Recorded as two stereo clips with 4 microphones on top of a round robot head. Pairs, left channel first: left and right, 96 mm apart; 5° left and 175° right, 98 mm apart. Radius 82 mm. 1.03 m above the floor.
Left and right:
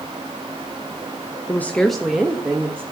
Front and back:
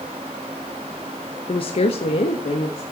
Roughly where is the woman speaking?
Ahead left.